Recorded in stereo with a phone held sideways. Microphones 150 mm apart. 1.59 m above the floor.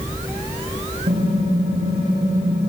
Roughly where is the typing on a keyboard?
Right.